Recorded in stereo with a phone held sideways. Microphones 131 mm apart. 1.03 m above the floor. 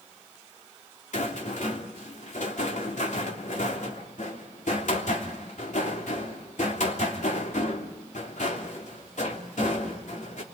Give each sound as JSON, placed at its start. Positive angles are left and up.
{"t": 1.1, "sound": "a rattle", "side_deg": 70, "distance_m": 3.0}